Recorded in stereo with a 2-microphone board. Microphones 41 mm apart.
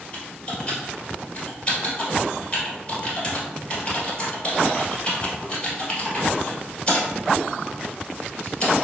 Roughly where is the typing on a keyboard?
Left.